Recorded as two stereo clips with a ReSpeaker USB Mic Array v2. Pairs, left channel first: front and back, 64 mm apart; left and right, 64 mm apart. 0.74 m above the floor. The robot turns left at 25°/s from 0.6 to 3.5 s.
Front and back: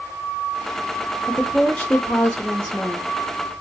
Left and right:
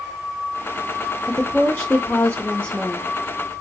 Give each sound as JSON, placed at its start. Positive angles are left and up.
{"t": 1.3, "sound": "a woman speaking", "azimuth_deg": 65, "distance_m": 0.7}